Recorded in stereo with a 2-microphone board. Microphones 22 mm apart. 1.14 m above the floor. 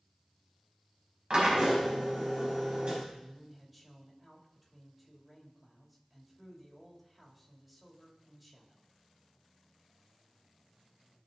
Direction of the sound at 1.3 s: 55° right (ahead or behind).